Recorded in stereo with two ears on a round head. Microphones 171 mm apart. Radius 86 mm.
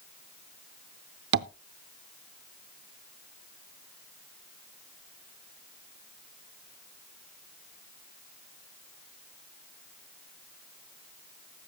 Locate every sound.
1.3 s tapping: 55° right (ahead or behind), 0.5 m